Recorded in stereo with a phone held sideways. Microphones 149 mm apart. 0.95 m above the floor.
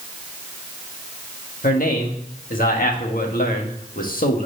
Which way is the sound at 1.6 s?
70° left (ahead or behind).